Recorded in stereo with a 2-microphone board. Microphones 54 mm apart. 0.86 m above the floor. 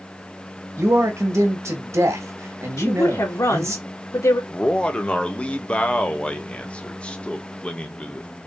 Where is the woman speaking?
65° left (ahead or behind), 1.9 m.